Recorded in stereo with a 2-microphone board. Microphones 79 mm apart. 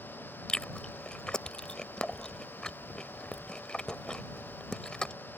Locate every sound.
0.5 s chewing: 10° left (ahead or behind)